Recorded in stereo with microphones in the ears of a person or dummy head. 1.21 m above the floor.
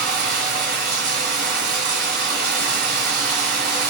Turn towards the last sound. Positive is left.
turn(degrees=-55)  # may be behind; listen again after turning